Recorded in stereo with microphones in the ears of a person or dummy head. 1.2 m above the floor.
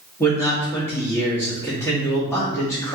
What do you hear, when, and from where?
0.2 s a man speaking: 20° left (ahead or behind), 2 m